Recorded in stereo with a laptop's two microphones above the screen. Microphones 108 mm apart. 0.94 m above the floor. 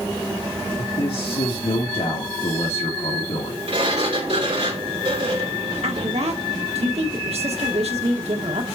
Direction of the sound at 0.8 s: 75° left (ahead or behind).